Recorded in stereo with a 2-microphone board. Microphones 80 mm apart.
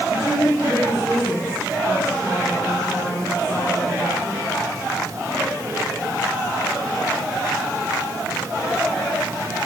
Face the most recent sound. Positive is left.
turn(degrees=25)  # may be behind; listen again after turning